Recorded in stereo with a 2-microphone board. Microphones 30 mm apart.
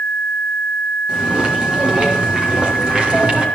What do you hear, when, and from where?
1.1 s footsteps: 25° right (ahead or behind), 7.5 m; by 3.5 s 30° right (ahead or behind), 7 m